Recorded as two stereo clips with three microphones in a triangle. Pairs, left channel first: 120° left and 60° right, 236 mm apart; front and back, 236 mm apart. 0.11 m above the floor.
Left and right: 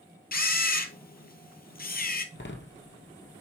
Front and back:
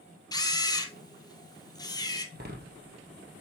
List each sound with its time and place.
0.3 s a camera shutter: 70° left, 0.9 m
2.4 s a door slam: 145° left, 2.0 m